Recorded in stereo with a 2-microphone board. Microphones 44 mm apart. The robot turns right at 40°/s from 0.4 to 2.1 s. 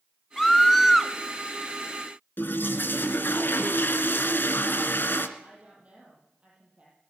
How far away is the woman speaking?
About 7.5 m.